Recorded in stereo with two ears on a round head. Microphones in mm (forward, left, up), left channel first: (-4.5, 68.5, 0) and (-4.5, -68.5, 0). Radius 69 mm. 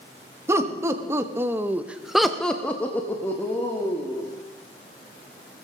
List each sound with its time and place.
0.5 s laughter: 20° right (ahead or behind), 1.5 m; by 4.3 s 15° left (ahead or behind), 2 m